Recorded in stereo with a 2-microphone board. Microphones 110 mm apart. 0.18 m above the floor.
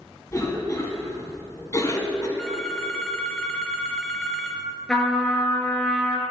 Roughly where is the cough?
Left.